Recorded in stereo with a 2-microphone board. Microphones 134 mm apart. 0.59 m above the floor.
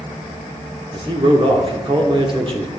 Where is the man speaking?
40° right (ahead or behind), 1.6 m.